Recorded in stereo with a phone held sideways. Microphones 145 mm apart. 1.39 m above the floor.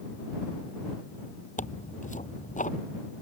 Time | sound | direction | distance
1.6 | tearing paper | 60° left (ahead or behind) | ?